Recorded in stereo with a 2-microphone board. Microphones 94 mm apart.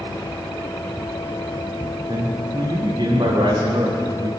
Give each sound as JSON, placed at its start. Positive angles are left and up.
{"t": 2.1, "sound": "a man speaking", "side_deg": -60, "distance_m": 9.0}